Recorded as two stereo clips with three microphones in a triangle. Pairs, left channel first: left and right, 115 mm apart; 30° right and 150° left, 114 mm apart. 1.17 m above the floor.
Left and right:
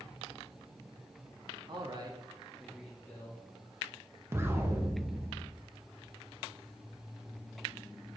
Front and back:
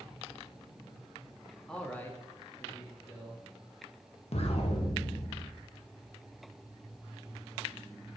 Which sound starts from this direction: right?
A man speaking, at 1.7 s.